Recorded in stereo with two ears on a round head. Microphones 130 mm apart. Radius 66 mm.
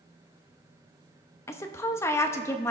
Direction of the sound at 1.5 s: 20° left (ahead or behind).